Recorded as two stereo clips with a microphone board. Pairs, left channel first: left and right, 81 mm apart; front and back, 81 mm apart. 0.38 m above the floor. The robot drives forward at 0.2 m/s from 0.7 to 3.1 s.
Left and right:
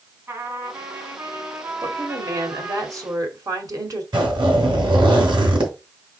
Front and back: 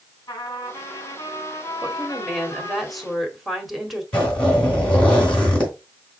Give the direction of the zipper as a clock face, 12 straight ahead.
3 o'clock.